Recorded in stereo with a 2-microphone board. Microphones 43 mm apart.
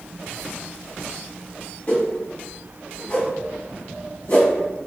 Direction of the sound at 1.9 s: 35° left (ahead or behind).